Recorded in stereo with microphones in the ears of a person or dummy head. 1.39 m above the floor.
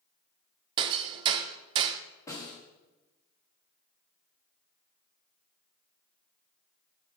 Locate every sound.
0.8 s hammering: 35° right (ahead or behind), 0.5 m
2.3 s a snare drum: 20° left (ahead or behind), 1.9 m